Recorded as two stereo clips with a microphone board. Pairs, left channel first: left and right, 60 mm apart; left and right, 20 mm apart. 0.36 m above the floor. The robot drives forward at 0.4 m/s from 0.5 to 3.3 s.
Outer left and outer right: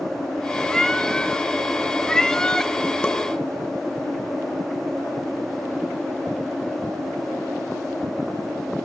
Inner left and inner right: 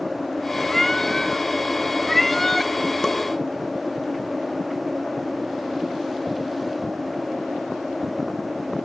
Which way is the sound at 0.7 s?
10° left (ahead or behind).